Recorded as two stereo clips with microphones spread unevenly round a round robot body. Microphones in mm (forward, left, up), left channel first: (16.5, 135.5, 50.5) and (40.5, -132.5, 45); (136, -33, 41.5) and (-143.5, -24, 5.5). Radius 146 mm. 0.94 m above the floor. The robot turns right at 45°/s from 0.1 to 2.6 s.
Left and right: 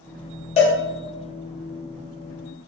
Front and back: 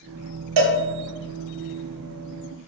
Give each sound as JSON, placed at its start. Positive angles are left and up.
{"t": 0.6, "sound": "a cowbell", "azimuth_deg": 160, "distance_m": 0.6}